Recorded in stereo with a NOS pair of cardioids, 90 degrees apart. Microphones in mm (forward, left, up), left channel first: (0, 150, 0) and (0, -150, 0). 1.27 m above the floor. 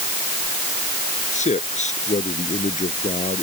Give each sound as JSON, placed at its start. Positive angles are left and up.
{"t": 1.3, "sound": "a man speaking", "azimuth_deg": 20}